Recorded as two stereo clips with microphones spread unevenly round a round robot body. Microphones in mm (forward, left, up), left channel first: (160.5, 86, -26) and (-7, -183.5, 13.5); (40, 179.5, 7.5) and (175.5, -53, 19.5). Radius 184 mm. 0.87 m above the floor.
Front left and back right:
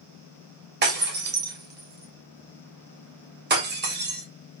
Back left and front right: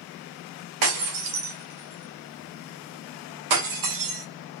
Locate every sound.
0.8 s breaking glass: 60° right, 1.8 m